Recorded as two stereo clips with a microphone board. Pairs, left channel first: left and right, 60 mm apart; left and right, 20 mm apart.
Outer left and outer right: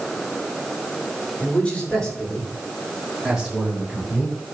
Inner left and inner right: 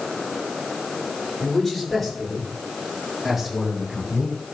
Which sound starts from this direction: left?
A man speaking, at 1.4 s.